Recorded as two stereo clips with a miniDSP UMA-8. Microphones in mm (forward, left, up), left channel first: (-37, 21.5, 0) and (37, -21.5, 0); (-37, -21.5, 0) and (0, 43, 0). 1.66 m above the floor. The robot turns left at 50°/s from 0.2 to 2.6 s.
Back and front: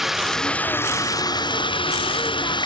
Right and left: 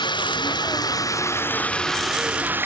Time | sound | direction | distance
0.0 | running water | 120° right | ?